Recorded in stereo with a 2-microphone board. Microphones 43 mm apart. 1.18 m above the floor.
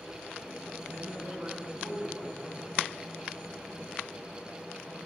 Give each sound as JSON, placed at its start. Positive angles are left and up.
{"t": 0.9, "sound": "a man speaking", "side_deg": -55, "distance_m": 6.0}